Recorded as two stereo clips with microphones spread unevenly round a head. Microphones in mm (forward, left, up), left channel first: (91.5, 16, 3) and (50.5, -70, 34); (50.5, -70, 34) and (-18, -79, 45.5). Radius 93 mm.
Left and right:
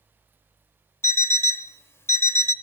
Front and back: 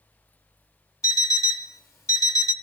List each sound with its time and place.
1.0 s an alarm clock: 5° right, 0.9 m